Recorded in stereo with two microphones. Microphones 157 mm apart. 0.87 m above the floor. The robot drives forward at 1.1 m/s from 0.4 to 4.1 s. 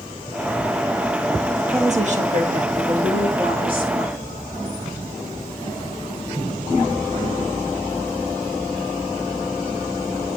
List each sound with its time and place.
1.7 s a woman speaking: 40° right (ahead or behind), 1.5 m; by 4.4 s 30° right (ahead or behind), 2 m